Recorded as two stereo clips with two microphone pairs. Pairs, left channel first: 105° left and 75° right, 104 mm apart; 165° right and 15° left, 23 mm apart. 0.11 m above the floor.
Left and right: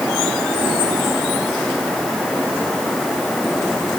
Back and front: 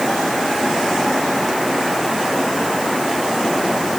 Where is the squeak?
I don't hear a squeak.